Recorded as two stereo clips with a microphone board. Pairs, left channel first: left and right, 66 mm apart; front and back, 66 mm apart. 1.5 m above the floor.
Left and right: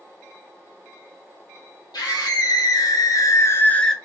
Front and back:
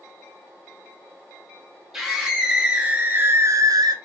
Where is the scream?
95° left, 1.6 m; by 3.9 s 175° left, 0.5 m.